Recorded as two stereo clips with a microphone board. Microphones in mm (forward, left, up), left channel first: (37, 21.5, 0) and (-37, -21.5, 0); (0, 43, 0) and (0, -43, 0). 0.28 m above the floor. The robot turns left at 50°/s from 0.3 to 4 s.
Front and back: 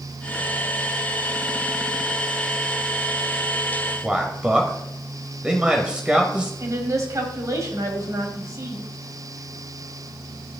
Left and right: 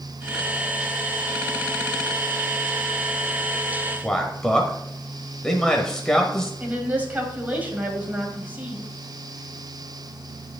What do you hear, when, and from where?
4.0 s a man speaking: 155° left, 1.0 m
6.6 s a woman speaking: 150° right, 1.7 m